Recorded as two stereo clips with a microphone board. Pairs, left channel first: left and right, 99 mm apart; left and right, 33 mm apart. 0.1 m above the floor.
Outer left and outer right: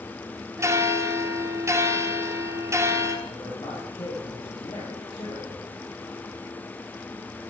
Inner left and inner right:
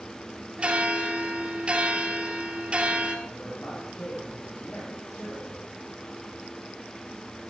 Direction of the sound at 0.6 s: 25° right (ahead or behind).